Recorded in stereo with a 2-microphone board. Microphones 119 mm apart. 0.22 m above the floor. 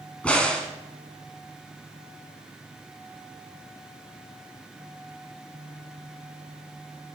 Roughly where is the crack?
Centre.